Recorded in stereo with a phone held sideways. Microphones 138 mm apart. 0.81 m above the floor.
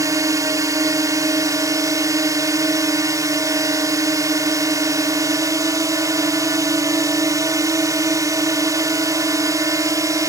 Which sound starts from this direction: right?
A drone, at 0.0 s.